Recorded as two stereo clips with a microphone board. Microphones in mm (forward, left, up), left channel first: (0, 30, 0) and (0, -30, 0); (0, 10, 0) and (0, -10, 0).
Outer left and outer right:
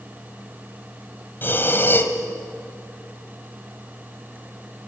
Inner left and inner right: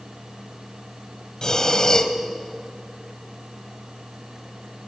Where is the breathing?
40° left (ahead or behind), 1.5 m.